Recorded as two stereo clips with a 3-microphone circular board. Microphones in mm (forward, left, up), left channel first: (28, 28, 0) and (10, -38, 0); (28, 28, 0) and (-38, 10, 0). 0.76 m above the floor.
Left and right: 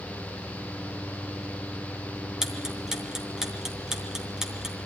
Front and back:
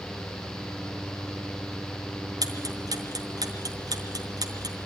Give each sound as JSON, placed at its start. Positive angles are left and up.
{"t": 2.4, "sound": "ticking", "azimuth_deg": 175, "distance_m": 3.0}